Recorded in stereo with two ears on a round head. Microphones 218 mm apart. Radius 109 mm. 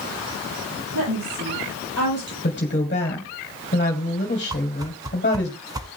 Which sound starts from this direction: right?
A woman speaking, at 0.9 s.